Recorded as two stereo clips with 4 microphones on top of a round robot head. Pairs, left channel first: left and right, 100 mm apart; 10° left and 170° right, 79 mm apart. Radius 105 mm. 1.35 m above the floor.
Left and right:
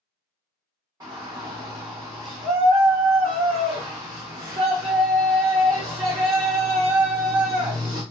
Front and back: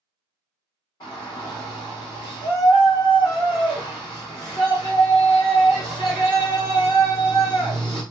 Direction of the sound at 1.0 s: 35° right.